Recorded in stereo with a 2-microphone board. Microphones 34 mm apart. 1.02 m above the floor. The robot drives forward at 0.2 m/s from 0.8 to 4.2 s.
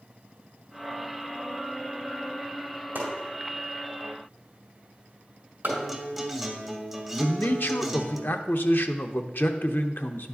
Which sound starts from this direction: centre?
A guitar, at 5.7 s.